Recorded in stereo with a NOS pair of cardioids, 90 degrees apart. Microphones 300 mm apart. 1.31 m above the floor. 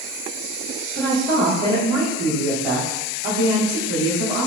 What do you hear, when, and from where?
0.9 s a woman speaking: 45° right, 1.1 m